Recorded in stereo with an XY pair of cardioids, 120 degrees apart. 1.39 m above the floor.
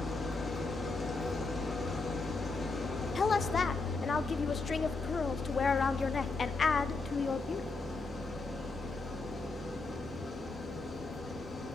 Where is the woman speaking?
30° left, 0.5 m.